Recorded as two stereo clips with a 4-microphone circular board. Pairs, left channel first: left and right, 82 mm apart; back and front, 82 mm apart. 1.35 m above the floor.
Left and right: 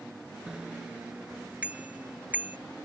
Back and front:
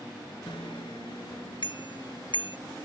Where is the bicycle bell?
170° right; by 2.6 s 160° right.